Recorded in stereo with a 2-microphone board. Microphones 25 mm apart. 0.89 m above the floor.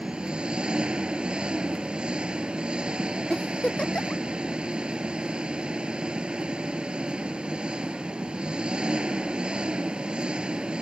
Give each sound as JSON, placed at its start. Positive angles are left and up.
{"t": 0.0, "sound": "an engine running", "side_deg": -40}
{"t": 3.3, "sound": "a giggle", "side_deg": 45}